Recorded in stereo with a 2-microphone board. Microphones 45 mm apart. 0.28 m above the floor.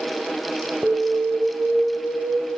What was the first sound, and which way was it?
An alarm, 15° right (ahead or behind).